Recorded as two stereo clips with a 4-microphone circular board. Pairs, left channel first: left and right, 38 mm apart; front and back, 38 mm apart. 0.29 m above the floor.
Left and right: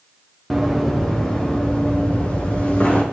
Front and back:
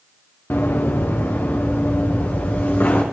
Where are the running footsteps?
Straight ahead, 2.5 m; by 3.0 s 35° left, 4.5 m.